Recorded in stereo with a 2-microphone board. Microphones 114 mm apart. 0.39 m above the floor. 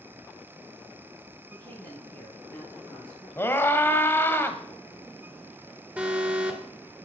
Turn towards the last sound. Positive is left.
turn(degrees=-10)  # may be behind; listen again after turning